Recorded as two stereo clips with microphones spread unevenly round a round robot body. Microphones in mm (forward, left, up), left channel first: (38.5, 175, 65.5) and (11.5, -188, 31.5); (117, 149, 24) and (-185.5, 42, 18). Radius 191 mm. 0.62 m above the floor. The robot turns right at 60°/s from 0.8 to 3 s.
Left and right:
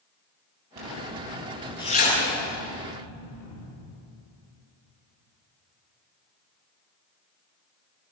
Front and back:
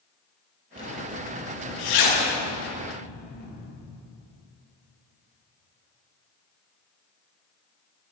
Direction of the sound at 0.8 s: 50° right.